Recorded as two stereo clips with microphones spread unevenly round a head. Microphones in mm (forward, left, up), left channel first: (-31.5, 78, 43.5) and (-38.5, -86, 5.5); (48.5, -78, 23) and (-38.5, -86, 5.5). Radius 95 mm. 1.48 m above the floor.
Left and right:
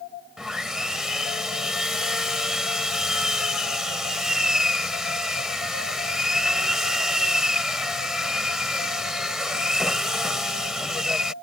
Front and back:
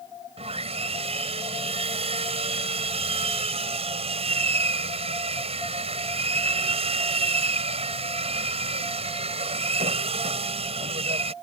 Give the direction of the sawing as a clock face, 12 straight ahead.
6 o'clock.